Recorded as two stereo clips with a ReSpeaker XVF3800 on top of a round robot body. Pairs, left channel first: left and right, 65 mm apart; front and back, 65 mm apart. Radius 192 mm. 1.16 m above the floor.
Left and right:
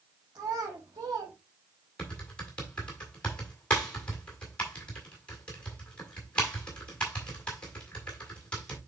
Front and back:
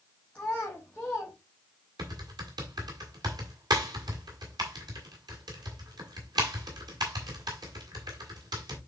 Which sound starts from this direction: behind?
Typing on a keyboard, at 2.0 s.